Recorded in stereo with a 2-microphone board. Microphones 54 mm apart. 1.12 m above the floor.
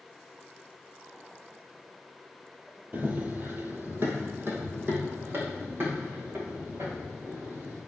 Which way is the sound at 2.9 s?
35° right (ahead or behind).